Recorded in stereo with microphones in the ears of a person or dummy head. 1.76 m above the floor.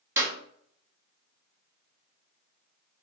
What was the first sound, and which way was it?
A clap, 15° right (ahead or behind).